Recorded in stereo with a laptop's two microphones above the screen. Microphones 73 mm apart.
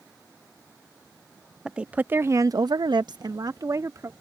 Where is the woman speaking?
10° right (ahead or behind); by 4.1 s 45° right (ahead or behind).